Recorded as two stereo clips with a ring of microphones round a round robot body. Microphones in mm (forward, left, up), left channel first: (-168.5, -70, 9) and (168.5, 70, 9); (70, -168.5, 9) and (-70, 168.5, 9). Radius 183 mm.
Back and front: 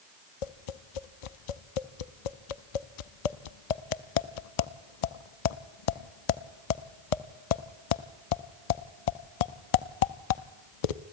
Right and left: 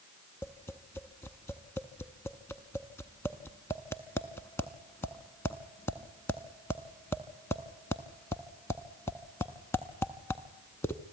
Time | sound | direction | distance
0.4 | tapping | 150° right | 0.6 m